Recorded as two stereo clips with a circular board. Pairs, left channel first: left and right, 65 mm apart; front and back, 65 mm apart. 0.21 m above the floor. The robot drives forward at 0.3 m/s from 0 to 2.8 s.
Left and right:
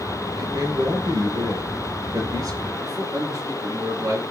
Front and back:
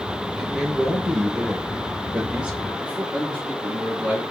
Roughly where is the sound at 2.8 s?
Right.